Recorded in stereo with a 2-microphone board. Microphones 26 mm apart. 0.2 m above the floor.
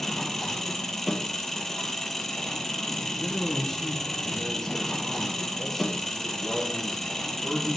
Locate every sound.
0.0 s an engine running: 10° left (ahead or behind), 1.4 m
3.0 s a man speaking: 15° left (ahead or behind), 2.5 m